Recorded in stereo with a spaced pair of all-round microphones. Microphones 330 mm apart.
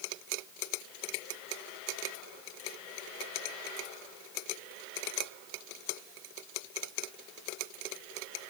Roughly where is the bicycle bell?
I don't hear a bicycle bell.